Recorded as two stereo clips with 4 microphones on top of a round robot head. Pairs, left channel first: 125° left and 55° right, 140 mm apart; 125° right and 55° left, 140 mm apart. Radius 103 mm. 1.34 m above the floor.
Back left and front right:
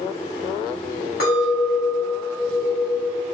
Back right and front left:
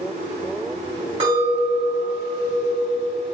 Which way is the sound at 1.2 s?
110° left.